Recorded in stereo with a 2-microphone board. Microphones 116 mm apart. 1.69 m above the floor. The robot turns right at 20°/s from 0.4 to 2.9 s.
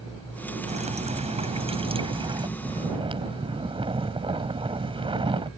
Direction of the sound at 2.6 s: 55° right (ahead or behind).